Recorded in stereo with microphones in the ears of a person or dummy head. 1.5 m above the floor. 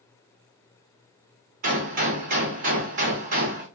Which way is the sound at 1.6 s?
35° right (ahead or behind).